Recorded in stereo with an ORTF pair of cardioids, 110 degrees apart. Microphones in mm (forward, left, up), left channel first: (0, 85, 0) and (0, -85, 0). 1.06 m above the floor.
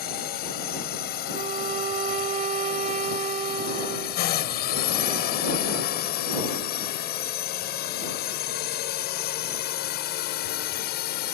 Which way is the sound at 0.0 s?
65° left.